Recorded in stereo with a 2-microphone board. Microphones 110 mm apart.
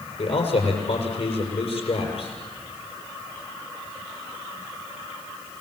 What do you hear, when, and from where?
0.2 s a man speaking: 70° left (ahead or behind), 6 m